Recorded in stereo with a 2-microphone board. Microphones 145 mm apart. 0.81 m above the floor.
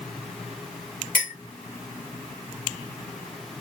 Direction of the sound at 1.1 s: 70° left (ahead or behind).